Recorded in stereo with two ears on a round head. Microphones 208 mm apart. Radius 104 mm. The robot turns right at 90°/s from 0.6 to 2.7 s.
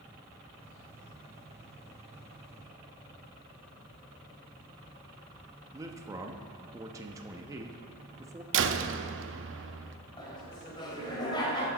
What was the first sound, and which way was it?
A man speaking, 15° right (ahead or behind).